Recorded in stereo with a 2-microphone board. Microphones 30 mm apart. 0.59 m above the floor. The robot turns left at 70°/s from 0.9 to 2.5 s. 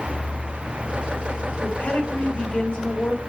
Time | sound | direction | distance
1.6 | a woman speaking | 140° left | 2.5 m